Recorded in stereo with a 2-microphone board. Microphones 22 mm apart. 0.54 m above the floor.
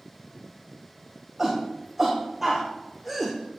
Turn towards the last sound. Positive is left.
turn(degrees=5)  # may be behind; listen again after turning